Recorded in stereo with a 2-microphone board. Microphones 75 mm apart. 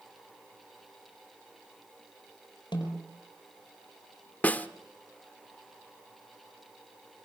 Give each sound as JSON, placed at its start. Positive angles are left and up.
{"t": 2.7, "sound": "a snare drum", "side_deg": 85, "distance_m": 7.0}
{"t": 4.4, "sound": "a snare drum", "side_deg": 20, "distance_m": 0.9}